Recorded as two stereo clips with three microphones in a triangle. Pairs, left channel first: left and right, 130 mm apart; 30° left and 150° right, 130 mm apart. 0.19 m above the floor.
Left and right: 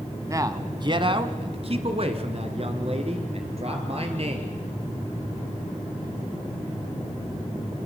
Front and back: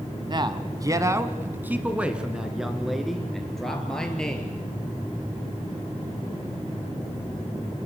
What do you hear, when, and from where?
0.3 s a man speaking: 140° right, 1.5 m; by 4.5 s 55° right, 4 m